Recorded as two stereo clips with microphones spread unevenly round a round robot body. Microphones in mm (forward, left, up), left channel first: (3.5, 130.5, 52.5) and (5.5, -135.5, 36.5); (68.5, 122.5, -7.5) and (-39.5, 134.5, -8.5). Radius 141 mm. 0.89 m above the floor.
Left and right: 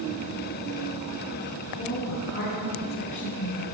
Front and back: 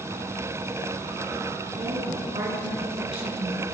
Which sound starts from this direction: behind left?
A woman speaking, at 1.8 s.